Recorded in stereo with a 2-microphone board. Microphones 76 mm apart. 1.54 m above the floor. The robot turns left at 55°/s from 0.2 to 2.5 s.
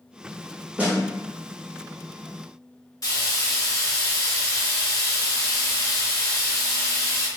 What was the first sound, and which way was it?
A snare drum, 20° right (ahead or behind).